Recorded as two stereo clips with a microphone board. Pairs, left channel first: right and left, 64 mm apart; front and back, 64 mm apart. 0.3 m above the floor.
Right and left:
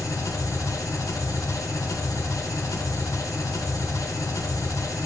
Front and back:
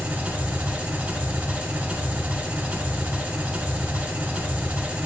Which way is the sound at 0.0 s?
115° right.